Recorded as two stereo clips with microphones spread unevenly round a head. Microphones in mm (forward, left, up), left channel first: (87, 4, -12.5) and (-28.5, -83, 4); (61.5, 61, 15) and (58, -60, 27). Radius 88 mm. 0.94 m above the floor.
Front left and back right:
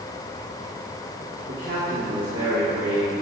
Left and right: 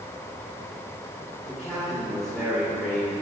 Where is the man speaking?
175° left, 2 m.